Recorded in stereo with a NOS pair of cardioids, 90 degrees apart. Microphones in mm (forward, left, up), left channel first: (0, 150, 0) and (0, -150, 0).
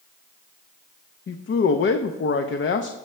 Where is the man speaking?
40° left, 0.8 m.